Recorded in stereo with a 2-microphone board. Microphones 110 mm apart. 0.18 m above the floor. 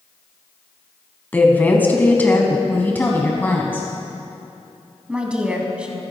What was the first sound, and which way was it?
A woman speaking, 15° left (ahead or behind).